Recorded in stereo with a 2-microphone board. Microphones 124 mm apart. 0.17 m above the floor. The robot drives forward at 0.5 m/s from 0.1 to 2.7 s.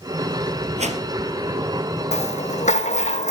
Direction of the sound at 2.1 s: 70° left (ahead or behind).